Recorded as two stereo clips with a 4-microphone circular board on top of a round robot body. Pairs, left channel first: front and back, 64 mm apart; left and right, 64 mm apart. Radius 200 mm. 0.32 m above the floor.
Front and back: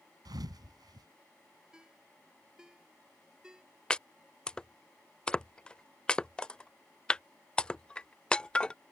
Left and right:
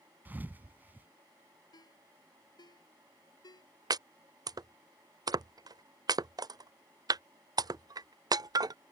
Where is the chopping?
75° right.